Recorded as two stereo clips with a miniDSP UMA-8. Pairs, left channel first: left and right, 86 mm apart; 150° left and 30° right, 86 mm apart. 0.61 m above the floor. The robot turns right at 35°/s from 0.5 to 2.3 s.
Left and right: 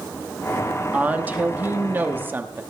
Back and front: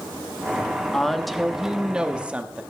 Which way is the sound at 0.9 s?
135° right.